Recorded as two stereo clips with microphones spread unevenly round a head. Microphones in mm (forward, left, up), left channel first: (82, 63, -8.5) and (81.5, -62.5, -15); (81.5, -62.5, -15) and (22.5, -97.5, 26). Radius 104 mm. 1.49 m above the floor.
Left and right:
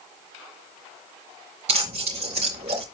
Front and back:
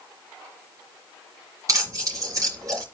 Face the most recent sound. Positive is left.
turn(degrees=-145)